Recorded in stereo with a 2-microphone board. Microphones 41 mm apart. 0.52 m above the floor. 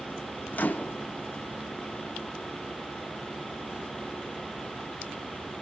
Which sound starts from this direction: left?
A microwave, at 0.5 s.